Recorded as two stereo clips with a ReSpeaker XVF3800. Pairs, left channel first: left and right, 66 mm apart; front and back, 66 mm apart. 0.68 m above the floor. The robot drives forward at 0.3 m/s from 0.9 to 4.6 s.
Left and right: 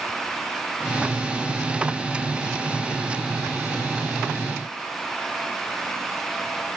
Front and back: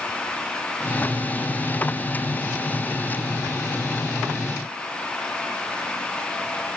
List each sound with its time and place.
Only background noise.